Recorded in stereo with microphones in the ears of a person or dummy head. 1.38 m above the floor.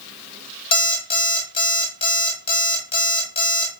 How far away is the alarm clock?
About 1.5 m.